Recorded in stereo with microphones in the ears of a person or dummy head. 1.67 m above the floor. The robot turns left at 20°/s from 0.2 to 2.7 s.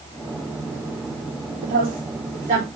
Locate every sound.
1.6 s a woman speaking: 55° right (ahead or behind), 5 m; by 2.6 s 35° right (ahead or behind), 5 m